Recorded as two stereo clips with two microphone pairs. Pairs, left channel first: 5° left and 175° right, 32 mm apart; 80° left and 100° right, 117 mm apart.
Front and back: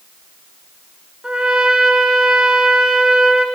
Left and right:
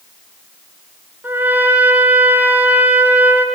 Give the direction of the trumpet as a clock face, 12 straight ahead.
5 o'clock.